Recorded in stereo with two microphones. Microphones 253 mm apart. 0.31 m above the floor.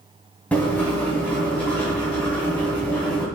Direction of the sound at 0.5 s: 5° left (ahead or behind).